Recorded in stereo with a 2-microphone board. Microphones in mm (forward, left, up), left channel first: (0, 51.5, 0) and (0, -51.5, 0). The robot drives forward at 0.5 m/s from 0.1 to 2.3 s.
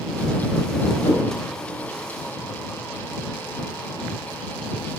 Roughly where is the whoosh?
Left.